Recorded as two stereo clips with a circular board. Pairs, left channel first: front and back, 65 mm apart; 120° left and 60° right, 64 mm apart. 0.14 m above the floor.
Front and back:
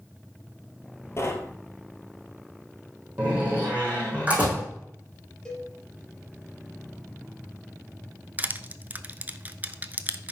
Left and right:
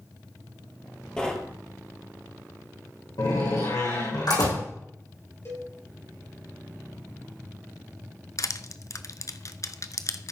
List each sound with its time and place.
1.2 s knocking: 40° left, 1.9 m
3.2 s a door slam: 110° left, 5 m
5.5 s a cowbell: 75° left, 3.5 m
8.4 s crushing: 120° left, 0.7 m